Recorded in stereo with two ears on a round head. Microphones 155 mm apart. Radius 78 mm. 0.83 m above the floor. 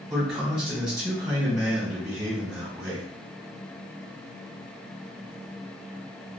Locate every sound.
0.1 s a man speaking: 15° right (ahead or behind), 1.5 m